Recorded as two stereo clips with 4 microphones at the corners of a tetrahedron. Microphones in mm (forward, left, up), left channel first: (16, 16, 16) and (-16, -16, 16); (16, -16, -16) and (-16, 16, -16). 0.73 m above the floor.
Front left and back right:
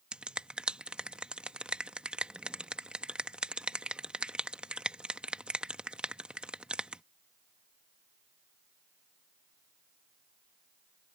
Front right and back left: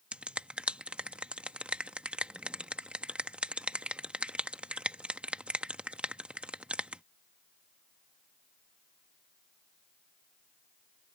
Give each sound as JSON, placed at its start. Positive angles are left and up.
{"t": 0.1, "sound": "a finger snap", "azimuth_deg": 180}